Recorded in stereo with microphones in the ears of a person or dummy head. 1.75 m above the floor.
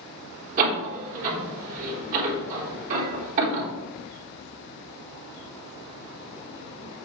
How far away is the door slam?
About 3.5 m.